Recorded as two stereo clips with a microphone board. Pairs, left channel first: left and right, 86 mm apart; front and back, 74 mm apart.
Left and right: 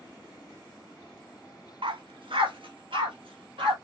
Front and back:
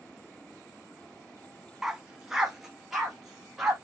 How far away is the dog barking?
About 0.6 m.